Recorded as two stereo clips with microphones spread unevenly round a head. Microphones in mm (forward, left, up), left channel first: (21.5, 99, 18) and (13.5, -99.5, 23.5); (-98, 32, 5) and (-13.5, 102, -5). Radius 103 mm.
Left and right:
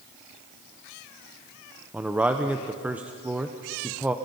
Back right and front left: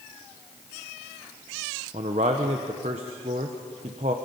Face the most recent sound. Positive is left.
turn(degrees=-10)